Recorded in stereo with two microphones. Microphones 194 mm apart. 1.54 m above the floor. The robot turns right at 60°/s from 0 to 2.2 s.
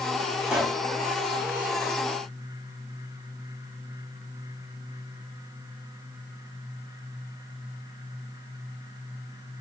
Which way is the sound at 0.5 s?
10° right (ahead or behind).